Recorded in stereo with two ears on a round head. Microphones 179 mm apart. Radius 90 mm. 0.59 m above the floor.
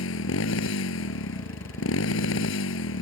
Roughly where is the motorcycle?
Left.